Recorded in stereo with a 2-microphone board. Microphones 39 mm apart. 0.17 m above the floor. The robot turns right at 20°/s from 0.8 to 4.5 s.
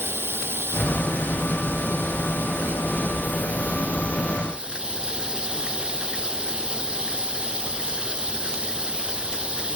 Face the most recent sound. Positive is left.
turn(degrees=-25)